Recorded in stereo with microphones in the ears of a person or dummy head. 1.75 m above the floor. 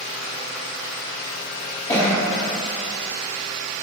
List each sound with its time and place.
1.9 s a cough: 15° left (ahead or behind), 0.6 m